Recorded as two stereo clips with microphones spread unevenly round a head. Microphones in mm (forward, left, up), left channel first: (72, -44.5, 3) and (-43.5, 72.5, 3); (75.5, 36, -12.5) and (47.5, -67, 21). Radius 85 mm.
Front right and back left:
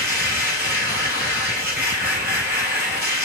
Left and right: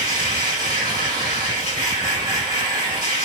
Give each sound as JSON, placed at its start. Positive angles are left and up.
{"t": 0.0, "sound": "a machine running", "azimuth_deg": -150, "distance_m": 3.0}